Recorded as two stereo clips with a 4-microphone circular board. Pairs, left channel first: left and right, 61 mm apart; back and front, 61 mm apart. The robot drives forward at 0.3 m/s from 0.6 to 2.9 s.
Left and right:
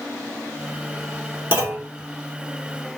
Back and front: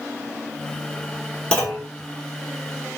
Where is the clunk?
115° right, 1.2 m; by 1.9 s 125° right, 1.2 m.